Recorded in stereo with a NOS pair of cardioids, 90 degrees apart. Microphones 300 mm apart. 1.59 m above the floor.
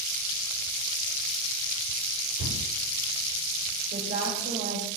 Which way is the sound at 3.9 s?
40° right.